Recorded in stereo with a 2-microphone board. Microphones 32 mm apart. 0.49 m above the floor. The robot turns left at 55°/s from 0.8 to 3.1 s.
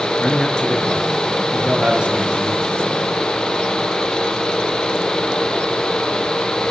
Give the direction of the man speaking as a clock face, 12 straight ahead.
11 o'clock.